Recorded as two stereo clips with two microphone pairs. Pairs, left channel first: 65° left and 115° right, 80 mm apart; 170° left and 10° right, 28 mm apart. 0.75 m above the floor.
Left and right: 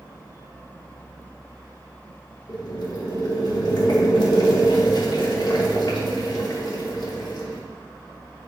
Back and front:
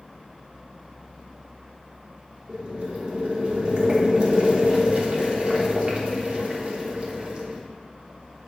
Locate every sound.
2.5 s boiling: 40° left, 1.1 m